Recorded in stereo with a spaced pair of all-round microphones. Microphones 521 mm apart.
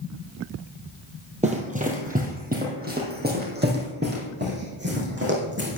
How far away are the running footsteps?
About 2 m.